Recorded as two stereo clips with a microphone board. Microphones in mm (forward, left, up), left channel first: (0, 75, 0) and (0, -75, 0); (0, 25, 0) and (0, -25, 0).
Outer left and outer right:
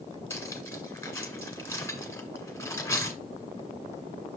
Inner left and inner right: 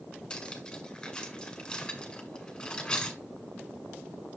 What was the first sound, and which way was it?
Cutlery clinking, 15° left (ahead or behind).